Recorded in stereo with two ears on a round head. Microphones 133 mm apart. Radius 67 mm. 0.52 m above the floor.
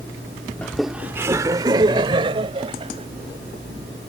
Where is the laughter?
10° left (ahead or behind); by 3.1 s 40° right (ahead or behind).